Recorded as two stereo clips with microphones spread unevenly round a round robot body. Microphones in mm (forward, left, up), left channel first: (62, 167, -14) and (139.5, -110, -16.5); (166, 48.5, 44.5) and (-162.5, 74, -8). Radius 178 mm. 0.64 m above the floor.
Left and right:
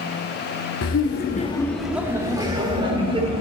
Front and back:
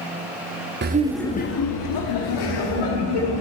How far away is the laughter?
About 0.8 m.